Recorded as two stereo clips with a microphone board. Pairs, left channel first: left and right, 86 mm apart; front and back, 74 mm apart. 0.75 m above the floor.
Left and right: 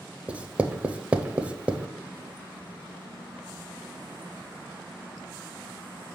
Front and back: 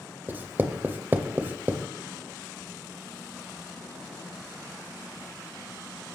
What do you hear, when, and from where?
0.3 s writing: 150° right, 0.5 m